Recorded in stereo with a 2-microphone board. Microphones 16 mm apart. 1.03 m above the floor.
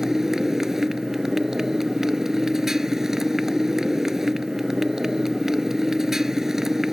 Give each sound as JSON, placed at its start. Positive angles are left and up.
{"t": 0.0, "sound": "a motorcycle", "side_deg": -20}